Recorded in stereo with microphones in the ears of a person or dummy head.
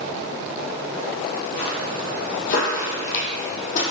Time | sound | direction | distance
1.6 | footsteps | 45° left (ahead or behind) | 2.5 m